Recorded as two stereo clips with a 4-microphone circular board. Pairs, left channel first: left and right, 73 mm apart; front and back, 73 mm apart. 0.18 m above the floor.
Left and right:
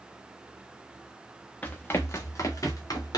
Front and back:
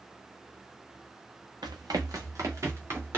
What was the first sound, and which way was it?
Running footsteps, 160° left.